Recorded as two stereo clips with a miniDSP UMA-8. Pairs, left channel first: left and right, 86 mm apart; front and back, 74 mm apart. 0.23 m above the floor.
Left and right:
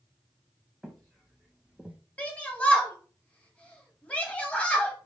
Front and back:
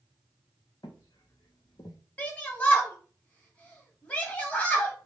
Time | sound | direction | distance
0.8 | footsteps | straight ahead | 1.0 m
2.2 | a shout | 35° left | 1.0 m